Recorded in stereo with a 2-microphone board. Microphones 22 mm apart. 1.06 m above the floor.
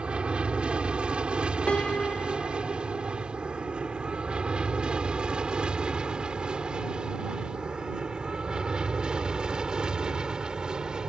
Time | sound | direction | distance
0.0 | an aircraft | 55° right (ahead or behind) | ?
1.7 | a piano | 60° left (ahead or behind) | ?